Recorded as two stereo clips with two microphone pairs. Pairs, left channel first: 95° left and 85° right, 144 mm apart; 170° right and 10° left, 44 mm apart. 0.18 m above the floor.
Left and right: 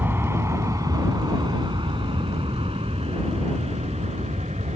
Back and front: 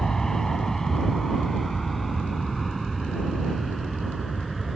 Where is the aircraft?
120° right; by 4.8 s 80° right.